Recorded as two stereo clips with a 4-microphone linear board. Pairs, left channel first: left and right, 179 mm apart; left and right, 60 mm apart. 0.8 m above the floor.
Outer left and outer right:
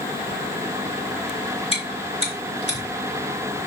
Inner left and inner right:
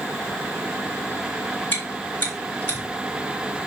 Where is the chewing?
30° left (ahead or behind), 3 m.